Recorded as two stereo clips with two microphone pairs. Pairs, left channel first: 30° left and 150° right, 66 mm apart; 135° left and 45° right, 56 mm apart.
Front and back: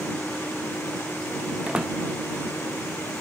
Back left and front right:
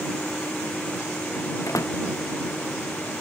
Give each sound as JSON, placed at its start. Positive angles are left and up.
{"t": 1.7, "sound": "a door slam", "azimuth_deg": 135}